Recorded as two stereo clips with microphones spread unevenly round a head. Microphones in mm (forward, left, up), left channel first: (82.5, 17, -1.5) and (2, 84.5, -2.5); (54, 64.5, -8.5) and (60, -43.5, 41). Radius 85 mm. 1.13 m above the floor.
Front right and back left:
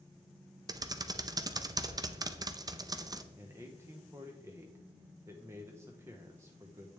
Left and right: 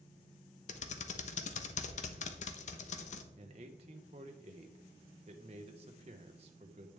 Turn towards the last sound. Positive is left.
turn(degrees=-145)